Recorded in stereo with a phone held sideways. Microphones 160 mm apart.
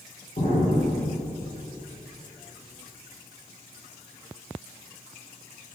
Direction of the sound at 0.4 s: 50° left (ahead or behind).